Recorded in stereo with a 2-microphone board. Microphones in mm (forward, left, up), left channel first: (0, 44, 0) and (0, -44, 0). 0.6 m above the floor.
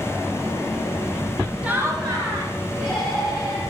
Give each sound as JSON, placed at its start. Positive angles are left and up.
{"t": 1.6, "sound": "laughter", "side_deg": -15, "distance_m": 0.7}